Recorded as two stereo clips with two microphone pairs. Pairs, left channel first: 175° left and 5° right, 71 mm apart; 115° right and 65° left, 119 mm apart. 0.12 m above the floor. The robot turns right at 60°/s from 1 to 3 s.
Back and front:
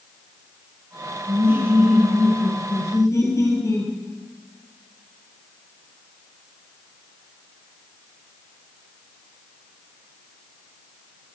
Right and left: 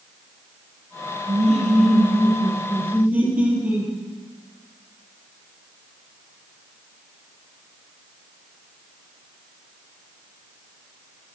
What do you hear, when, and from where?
1.3 s laughter: 35° left, 3 m; by 3.9 s 140° left, 3 m